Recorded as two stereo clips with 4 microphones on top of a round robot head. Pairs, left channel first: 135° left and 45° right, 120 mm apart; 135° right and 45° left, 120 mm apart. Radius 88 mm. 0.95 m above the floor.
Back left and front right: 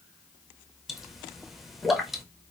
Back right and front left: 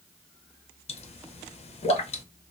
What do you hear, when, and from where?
0.9 s a pop: 135° right, 0.6 m